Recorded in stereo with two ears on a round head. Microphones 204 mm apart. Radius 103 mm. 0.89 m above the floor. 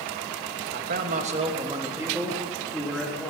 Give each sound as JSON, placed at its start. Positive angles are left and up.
{"t": 0.7, "sound": "a man speaking", "side_deg": -45, "distance_m": 1.2}